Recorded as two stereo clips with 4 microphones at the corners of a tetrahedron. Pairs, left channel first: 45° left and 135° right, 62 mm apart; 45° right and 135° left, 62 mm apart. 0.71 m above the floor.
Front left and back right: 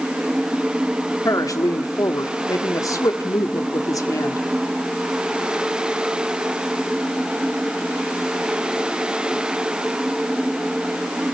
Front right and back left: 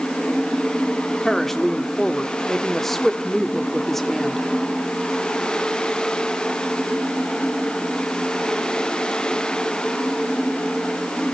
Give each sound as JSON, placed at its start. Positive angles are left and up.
{"t": 1.2, "sound": "a woman speaking", "azimuth_deg": 40, "distance_m": 1.4}